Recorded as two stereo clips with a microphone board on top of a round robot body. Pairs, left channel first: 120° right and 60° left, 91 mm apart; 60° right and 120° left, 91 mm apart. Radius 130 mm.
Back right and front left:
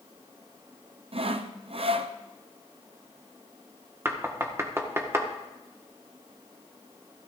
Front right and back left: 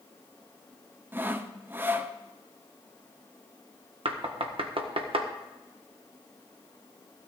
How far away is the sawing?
About 0.8 m.